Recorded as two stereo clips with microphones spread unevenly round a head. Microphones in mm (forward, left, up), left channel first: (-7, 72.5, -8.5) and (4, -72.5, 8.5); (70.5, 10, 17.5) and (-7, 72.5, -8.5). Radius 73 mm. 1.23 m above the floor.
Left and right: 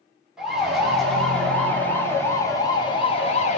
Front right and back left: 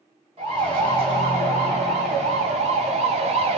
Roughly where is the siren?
Behind.